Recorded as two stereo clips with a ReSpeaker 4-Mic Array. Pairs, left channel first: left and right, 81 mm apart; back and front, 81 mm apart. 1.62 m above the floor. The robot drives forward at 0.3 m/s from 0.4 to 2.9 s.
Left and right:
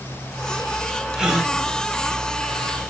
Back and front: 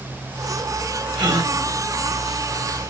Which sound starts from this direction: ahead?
A gasp, at 1.1 s.